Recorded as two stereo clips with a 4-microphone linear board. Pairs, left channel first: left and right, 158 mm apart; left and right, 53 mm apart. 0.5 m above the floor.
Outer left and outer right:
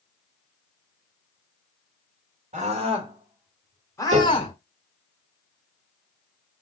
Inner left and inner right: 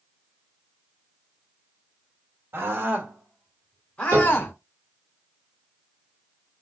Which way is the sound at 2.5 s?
50° right (ahead or behind).